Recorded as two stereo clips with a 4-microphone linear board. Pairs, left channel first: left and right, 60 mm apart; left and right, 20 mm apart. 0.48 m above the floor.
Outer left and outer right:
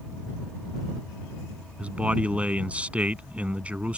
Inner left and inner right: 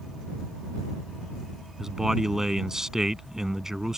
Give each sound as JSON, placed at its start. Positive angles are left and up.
{"t": 1.8, "sound": "a man speaking", "side_deg": -20}